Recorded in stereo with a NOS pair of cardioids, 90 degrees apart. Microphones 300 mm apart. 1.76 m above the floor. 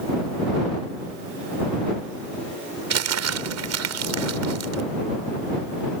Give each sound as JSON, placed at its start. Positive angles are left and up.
{"t": 2.9, "sound": "crumpling", "azimuth_deg": -60}